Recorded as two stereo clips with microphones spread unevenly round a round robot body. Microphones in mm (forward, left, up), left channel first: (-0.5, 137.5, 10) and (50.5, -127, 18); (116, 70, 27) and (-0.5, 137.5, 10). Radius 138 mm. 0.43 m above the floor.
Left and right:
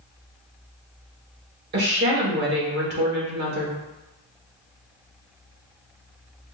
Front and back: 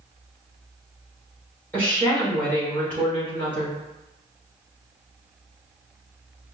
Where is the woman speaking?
115° right, 1.4 m.